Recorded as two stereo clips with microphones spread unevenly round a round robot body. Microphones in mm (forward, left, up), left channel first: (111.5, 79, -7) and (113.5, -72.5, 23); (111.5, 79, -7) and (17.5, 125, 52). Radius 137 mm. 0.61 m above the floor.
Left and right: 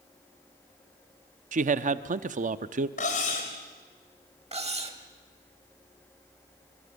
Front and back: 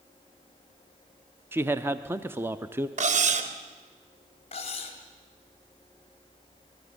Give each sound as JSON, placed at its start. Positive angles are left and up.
{"t": 1.5, "sound": "a man speaking", "azimuth_deg": -105, "distance_m": 0.7}
{"t": 3.0, "sound": "cutlery clinking", "azimuth_deg": 145, "distance_m": 1.7}
{"t": 4.5, "sound": "cutlery clinking", "azimuth_deg": -40, "distance_m": 2.5}